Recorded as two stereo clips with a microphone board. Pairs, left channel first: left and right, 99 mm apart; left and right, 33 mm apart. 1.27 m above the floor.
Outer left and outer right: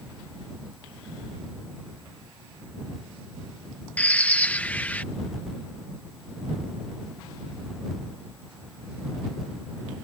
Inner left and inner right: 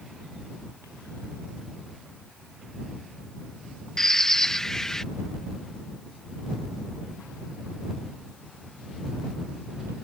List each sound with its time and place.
4.0 s a bird: 15° left (ahead or behind)